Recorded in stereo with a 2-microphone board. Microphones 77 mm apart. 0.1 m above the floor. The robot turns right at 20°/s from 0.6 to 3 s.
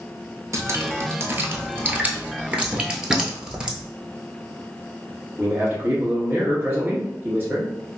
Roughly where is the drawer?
Centre.